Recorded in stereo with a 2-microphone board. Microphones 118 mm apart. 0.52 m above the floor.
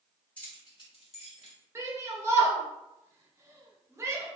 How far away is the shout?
About 0.9 m.